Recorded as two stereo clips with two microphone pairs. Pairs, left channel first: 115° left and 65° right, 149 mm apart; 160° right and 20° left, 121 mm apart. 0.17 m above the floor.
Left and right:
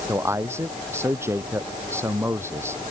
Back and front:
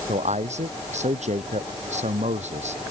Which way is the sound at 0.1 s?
5° left.